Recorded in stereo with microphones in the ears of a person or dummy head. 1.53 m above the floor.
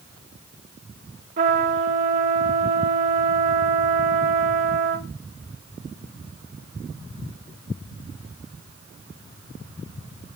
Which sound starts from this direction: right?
A trumpet, at 1.4 s.